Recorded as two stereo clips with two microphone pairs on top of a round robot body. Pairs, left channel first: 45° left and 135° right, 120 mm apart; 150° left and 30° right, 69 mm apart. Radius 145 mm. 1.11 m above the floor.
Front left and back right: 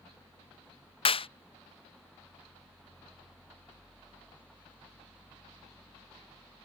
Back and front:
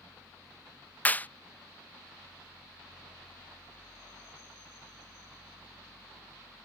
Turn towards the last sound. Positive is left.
turn(degrees=85)